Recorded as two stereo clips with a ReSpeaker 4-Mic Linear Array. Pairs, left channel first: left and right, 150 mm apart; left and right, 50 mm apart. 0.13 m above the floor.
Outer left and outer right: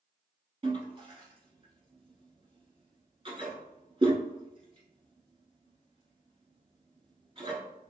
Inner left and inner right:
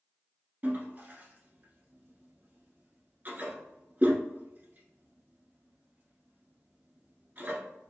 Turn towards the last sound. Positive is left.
turn(degrees=-40)  # may be behind; listen again after turning